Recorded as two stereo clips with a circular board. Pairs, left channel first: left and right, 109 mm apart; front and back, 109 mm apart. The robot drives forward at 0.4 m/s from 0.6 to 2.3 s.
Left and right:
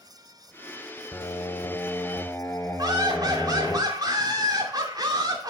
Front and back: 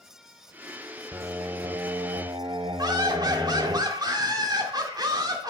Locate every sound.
1.1 s singing: 130° left, 0.6 m; by 3.8 s 155° left, 0.9 m
2.8 s laughter: 135° right, 2.5 m